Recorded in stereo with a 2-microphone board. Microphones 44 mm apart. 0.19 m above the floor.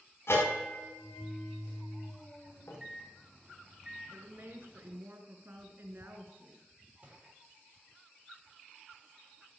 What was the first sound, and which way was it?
A bell, 70° left (ahead or behind).